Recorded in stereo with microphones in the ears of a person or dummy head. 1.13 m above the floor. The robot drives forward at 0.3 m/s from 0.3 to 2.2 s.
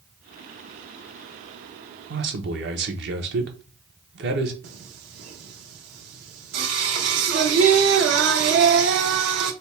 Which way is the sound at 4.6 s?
75° right (ahead or behind).